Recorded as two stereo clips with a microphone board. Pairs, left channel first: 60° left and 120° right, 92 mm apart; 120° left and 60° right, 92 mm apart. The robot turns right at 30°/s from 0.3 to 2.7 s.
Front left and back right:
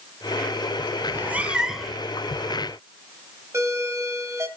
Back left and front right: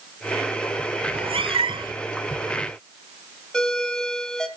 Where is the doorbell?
160° right, 2.5 m.